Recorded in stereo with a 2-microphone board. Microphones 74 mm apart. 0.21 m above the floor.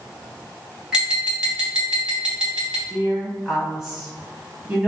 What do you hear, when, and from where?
0.9 s tapping: 10° right (ahead or behind), 1.1 m
2.9 s a woman speaking: 10° right (ahead or behind), 1.0 m